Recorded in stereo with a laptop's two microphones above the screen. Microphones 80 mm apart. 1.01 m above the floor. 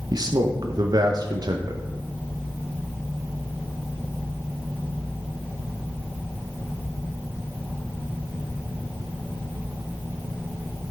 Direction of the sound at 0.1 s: 55° right (ahead or behind).